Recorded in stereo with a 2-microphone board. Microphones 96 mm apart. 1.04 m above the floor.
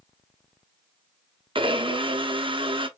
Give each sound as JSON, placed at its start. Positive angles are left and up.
{"t": 1.6, "sound": "a blender", "side_deg": -60, "distance_m": 0.9}